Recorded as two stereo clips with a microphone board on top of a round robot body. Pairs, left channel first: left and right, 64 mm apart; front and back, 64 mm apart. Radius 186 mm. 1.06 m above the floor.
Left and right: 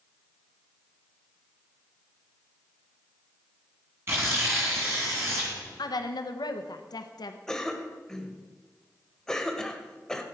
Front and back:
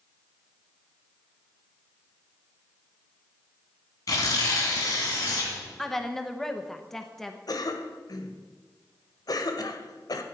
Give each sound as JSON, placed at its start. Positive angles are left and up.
{"t": 4.1, "sound": "tearing paper", "azimuth_deg": -35, "distance_m": 2.0}
{"t": 5.8, "sound": "a woman speaking", "azimuth_deg": 85, "distance_m": 1.0}
{"t": 7.5, "sound": "a cough", "azimuth_deg": 10, "distance_m": 1.7}